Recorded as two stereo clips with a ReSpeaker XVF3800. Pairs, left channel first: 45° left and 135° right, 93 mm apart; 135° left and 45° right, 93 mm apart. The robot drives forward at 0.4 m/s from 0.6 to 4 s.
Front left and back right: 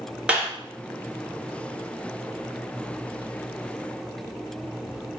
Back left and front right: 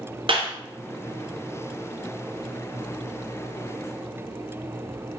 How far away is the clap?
About 2 m.